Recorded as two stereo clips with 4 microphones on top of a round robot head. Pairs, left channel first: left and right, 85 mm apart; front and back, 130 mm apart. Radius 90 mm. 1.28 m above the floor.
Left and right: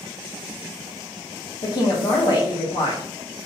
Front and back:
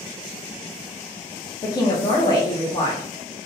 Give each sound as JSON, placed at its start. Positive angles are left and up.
{"t": 1.6, "sound": "a woman speaking", "azimuth_deg": 60, "distance_m": 0.7}